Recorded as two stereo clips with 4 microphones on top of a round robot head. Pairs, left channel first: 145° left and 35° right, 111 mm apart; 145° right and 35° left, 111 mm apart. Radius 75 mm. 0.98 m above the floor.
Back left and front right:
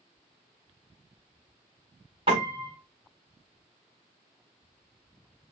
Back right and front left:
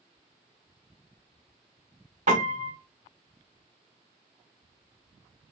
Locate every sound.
2.3 s a piano: 10° left, 1.6 m